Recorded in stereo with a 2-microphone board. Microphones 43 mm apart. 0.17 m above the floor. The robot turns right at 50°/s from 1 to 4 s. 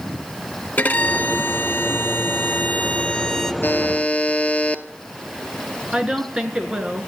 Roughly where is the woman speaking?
Right.